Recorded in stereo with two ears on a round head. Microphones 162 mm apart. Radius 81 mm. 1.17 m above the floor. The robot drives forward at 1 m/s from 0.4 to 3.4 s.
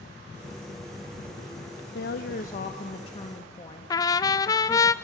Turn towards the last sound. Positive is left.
turn(degrees=20)  # may be behind; listen again after turning